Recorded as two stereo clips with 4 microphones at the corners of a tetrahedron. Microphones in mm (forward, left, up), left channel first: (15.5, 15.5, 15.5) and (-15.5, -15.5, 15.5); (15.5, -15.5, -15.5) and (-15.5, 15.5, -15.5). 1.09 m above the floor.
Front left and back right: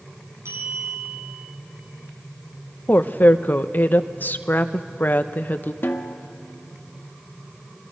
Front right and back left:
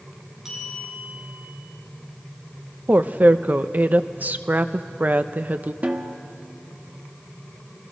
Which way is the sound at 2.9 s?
90° left.